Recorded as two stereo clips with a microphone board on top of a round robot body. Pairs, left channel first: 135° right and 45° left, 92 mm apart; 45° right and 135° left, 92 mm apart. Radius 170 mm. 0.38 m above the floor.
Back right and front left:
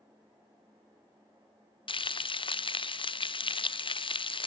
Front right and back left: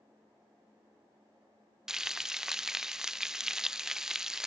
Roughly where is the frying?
Behind right.